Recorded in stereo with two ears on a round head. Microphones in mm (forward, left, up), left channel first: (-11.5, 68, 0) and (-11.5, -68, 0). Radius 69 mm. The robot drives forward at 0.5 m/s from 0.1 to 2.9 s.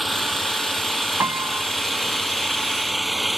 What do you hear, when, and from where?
0.0 s an engine running: centre (ahead or behind)
1.2 s a piano: 15° right (ahead or behind)